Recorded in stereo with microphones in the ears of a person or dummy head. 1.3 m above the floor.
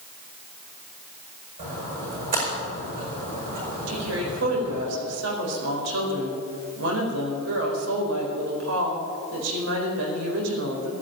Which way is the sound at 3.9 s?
80° right.